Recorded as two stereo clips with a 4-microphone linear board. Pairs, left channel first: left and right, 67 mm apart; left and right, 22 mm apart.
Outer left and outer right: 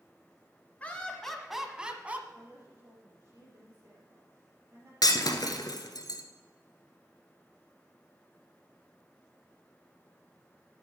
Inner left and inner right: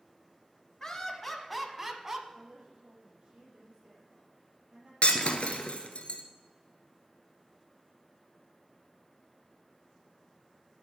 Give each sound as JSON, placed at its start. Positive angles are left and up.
{"t": 0.8, "sound": "laughter", "side_deg": 20, "distance_m": 1.1}
{"t": 2.3, "sound": "a woman speaking", "side_deg": -40, "distance_m": 5.0}
{"t": 5.0, "sound": "breaking glass", "side_deg": 70, "distance_m": 1.4}